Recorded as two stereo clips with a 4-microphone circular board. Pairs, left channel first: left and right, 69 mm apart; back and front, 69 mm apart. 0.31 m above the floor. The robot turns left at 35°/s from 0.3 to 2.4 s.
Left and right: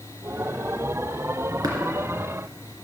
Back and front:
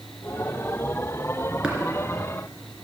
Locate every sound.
1.6 s tapping: 75° right, 2.5 m; by 1.8 s 80° right, 2.5 m